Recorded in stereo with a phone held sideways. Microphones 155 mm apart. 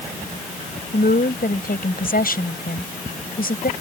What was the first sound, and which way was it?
A woman speaking, 70° left (ahead or behind).